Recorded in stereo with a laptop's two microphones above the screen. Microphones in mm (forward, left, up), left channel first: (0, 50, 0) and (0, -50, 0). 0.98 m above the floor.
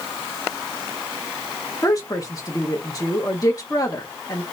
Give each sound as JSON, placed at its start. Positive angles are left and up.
{"t": 1.8, "sound": "a woman speaking", "side_deg": 35, "distance_m": 1.2}